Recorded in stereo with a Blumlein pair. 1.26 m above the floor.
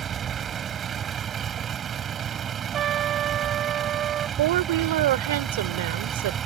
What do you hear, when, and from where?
0.0 s a vehicle: 25° right
2.7 s a trumpet: 30° right
4.4 s a woman speaking: 55° right